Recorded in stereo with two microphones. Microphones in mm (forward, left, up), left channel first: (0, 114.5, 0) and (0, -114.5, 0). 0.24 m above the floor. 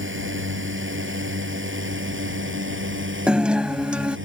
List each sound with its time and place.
0.0 s a drone: 65° right (ahead or behind)
3.3 s a guitar: 5° right (ahead or behind)